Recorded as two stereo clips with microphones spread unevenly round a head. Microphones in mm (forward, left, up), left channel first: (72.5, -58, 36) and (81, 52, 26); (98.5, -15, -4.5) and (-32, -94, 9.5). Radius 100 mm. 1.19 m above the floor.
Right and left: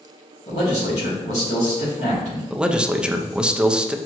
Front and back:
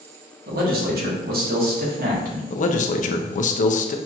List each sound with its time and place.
0.5 s a man speaking: 130° right, 1.5 m
2.5 s a man speaking: 5° left, 0.6 m